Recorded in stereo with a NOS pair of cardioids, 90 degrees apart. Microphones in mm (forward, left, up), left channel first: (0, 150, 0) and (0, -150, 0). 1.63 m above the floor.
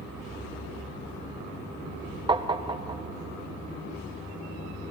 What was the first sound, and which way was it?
Tapping, 15° right.